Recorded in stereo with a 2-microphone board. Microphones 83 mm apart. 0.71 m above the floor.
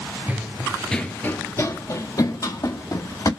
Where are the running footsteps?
20° right (ahead or behind), 0.7 m; by 3.3 s 50° left (ahead or behind), 1.9 m.